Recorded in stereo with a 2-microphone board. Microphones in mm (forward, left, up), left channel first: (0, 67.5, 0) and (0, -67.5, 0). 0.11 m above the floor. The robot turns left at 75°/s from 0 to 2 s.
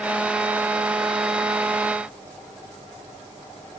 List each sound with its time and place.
Only background noise.